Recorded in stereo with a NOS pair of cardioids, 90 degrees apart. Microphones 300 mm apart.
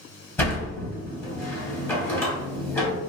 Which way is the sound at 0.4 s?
10° left.